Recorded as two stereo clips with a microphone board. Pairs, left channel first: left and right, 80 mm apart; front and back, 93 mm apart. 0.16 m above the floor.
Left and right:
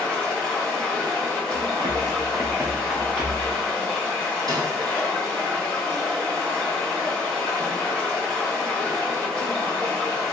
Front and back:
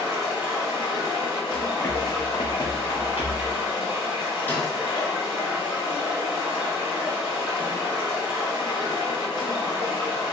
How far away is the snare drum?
About 1.1 m.